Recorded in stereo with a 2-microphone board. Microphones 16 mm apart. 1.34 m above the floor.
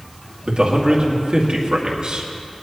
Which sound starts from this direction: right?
A man speaking, at 0.5 s.